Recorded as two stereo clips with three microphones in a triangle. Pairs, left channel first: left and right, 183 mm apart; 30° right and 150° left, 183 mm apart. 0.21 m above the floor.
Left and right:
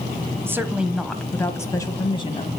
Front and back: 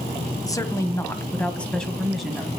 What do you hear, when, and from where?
0.5 s a woman speaking: 40° right, 1.3 m; by 2.5 s 65° left, 1.5 m